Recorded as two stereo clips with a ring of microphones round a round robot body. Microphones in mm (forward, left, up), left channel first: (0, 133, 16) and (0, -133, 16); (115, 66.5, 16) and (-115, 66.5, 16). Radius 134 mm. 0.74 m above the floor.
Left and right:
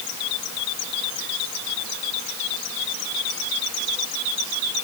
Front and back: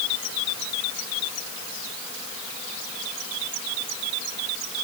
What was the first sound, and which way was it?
Only background noise.